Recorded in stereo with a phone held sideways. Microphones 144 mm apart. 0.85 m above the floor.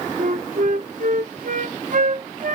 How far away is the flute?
About 0.6 m.